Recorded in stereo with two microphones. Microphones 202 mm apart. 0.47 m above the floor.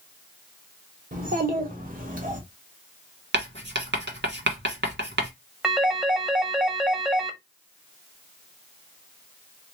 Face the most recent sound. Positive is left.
turn(degrees=-5)  # may be behind; listen again after turning